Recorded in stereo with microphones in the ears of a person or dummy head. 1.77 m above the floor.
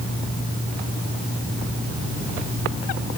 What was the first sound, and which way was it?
Only background noise.